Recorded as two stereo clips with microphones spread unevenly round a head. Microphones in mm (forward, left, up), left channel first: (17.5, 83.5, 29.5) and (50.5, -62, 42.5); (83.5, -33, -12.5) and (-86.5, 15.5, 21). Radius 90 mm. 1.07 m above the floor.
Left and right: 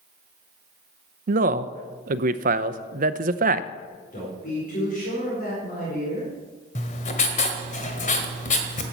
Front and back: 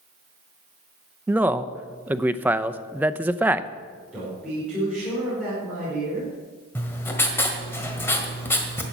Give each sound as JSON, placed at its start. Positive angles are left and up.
{"t": 1.3, "sound": "a man speaking", "azimuth_deg": -110, "distance_m": 0.6}
{"t": 4.1, "sound": "a man speaking", "azimuth_deg": 75, "distance_m": 4.5}
{"t": 6.8, "sound": "writing", "azimuth_deg": 65, "distance_m": 1.5}